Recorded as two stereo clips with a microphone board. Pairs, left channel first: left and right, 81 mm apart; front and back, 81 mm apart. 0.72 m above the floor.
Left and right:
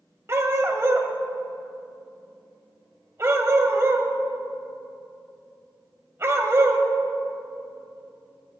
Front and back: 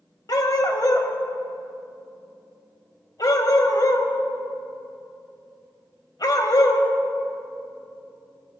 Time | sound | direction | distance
0.3 | a dog barking | 35° right | 1.2 m